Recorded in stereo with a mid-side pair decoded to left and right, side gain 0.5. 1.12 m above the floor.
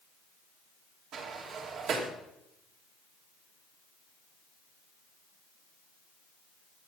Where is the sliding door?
65° right, 2.5 m.